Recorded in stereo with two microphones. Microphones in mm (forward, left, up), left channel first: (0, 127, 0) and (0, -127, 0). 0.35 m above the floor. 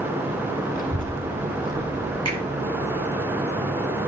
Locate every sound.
0.7 s a child speaking: 35° left (ahead or behind), 1.3 m
2.2 s a finger snap: 80° right, 6.5 m